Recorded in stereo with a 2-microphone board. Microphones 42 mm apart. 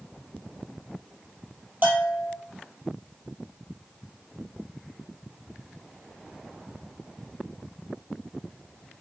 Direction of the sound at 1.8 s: 50° right (ahead or behind).